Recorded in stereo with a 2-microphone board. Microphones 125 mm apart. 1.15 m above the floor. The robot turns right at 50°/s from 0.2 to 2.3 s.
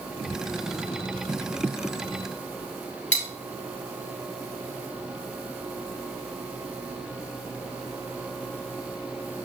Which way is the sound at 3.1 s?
80° left.